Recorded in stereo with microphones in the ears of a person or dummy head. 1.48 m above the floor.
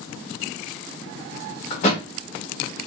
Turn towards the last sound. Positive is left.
turn(degrees=45)  # may be behind; listen again after turning